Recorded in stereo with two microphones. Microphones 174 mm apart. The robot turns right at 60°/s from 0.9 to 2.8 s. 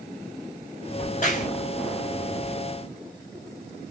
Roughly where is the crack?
Left.